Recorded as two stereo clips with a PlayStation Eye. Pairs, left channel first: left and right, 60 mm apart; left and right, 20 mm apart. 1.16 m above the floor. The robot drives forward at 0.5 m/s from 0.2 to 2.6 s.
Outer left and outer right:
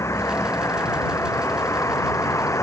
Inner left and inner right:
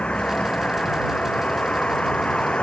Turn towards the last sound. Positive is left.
turn(degrees=55)  # may be behind; listen again after turning